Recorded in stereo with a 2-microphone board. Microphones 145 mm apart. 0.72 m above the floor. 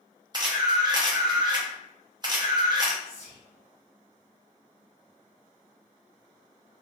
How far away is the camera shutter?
About 0.7 m.